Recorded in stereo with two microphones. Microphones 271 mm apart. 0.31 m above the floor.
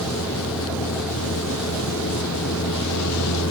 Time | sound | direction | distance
0.0 | a vehicle | 70° left (ahead or behind) | ?